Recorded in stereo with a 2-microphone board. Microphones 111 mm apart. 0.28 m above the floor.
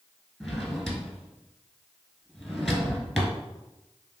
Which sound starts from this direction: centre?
A drawer, at 0.4 s.